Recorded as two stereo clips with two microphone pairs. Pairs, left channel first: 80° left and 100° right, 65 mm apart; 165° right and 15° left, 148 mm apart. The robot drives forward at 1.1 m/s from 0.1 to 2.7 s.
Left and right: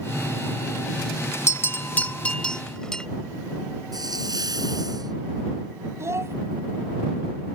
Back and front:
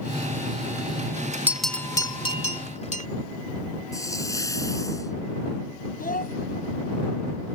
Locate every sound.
1.5 s a bell: 90° left; by 3.1 s 160° left
3.9 s a hiss: 100° right
6.0 s a child speaking: 150° right